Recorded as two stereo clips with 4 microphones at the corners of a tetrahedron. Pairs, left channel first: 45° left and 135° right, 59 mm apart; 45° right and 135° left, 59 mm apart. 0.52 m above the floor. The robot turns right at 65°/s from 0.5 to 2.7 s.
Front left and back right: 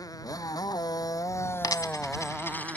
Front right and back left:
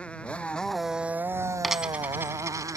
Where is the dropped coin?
45° left; by 2.8 s 110° left.